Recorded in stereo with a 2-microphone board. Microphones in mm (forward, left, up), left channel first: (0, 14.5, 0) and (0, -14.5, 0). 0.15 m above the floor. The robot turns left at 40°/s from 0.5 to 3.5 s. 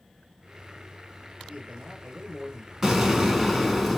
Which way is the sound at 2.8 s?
20° right (ahead or behind).